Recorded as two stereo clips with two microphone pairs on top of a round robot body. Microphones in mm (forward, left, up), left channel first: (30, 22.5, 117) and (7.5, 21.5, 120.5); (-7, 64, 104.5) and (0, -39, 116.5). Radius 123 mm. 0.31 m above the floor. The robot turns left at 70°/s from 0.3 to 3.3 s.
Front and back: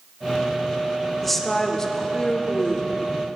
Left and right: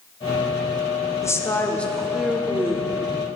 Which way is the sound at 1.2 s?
75° left.